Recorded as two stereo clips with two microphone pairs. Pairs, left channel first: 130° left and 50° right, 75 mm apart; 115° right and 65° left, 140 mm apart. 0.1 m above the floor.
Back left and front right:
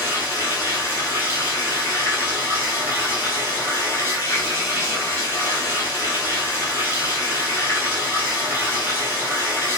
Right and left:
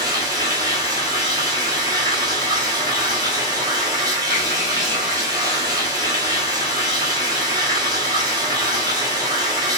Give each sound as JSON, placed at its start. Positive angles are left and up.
{"t": 0.0, "sound": "running water", "azimuth_deg": 5, "distance_m": 1.1}